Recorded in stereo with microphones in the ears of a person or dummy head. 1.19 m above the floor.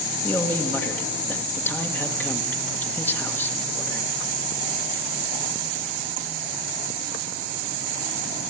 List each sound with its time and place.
0.2 s a man speaking: 15° left (ahead or behind), 1.5 m